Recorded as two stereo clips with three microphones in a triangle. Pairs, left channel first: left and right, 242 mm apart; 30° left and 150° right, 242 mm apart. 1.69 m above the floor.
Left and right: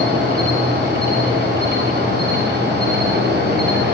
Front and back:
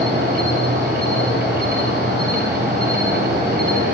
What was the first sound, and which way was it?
An insect, 120° right.